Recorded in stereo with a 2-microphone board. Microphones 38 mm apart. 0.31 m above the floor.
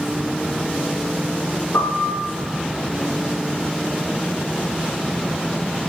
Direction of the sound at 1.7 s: 75° left (ahead or behind).